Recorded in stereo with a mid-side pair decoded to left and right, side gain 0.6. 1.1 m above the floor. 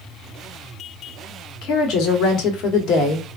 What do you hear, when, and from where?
1.6 s a woman speaking: 65° left, 1.0 m